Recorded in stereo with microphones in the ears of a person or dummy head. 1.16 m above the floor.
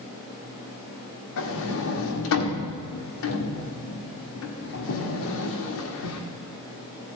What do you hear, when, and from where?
1.4 s a sliding door: 70° left (ahead or behind), 1.4 m